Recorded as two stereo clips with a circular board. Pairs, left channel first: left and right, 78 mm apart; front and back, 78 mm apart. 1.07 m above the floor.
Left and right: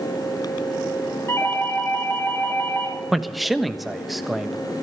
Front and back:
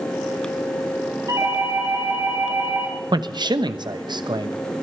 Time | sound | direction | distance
1.3 | a doorbell | 145° left | 6 m
3.1 | a man speaking | straight behind | 1.0 m